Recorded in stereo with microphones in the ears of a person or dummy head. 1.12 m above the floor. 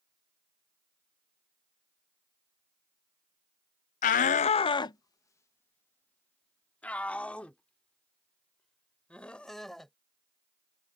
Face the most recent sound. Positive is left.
turn(degrees=5)  # may be behind; listen again after turning